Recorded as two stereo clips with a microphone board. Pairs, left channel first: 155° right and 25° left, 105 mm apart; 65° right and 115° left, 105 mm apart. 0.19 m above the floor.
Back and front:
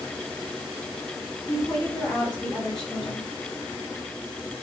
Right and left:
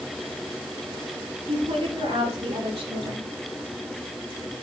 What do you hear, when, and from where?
1.5 s a woman speaking: 125° left, 6 m; by 3.3 s 120° left, 7.5 m